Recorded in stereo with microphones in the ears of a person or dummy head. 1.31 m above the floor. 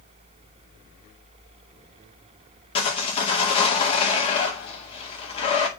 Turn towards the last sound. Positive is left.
turn(degrees=35)  # may be behind; listen again after turning